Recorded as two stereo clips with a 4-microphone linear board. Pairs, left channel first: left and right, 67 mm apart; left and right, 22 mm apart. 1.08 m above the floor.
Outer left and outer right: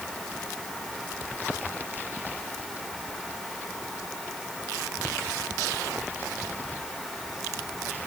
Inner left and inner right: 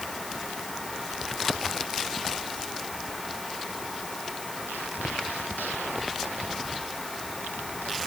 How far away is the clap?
I don't hear a clap.